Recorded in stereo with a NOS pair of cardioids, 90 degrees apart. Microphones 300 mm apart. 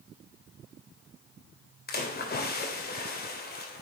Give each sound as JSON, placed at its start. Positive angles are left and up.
{"t": 1.9, "sound": "a splash", "azimuth_deg": 30, "distance_m": 2.5}